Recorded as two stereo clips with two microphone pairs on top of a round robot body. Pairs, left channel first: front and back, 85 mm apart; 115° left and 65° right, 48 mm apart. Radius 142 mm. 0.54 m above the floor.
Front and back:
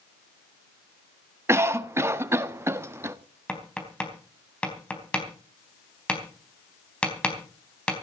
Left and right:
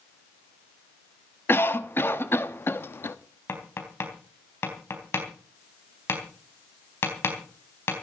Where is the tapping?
80° left, 4 m.